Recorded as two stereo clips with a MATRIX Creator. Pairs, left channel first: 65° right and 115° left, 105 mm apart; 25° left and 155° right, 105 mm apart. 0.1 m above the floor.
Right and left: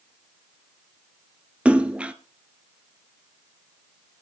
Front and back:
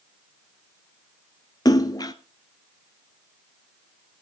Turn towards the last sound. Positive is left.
turn(degrees=40)